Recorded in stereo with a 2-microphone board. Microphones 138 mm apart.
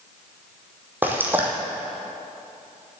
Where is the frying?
15° right (ahead or behind), 1.9 m.